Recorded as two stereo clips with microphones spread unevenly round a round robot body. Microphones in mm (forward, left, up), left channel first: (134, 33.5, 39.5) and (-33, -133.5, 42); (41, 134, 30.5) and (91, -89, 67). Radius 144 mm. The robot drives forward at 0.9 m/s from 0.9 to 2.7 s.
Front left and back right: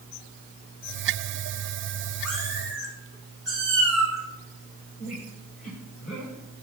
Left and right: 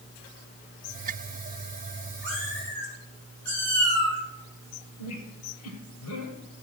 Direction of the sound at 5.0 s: 115° left.